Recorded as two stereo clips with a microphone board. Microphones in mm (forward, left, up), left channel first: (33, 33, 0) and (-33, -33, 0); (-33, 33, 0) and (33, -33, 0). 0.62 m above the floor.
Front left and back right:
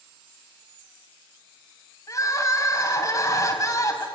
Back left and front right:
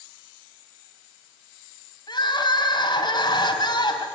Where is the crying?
95° left, 3.5 m.